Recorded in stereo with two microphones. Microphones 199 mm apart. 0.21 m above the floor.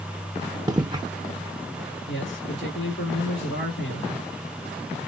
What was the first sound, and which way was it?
Footsteps, 20° right (ahead or behind).